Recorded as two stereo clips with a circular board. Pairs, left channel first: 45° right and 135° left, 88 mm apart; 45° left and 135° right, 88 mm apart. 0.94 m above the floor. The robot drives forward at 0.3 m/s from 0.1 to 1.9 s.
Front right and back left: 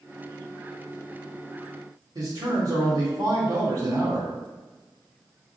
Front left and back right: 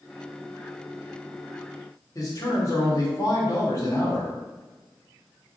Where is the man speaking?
90° left, 1.6 m.